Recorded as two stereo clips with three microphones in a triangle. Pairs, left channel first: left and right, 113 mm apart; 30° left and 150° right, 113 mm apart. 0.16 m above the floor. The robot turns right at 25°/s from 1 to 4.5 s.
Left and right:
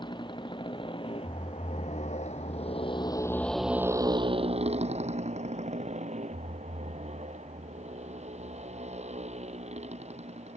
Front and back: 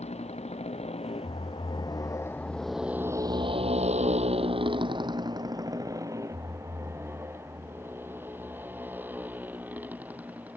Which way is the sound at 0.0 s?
45° left.